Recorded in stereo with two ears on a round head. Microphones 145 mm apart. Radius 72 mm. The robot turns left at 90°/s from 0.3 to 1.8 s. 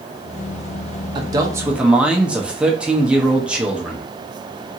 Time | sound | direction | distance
1.1 | a man speaking | 25° right (ahead or behind) | 0.6 m